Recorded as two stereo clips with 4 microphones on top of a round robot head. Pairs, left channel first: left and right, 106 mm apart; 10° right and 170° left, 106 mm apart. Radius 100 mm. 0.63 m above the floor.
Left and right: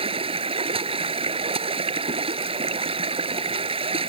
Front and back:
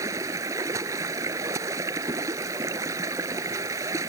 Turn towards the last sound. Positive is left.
turn(degrees=-120)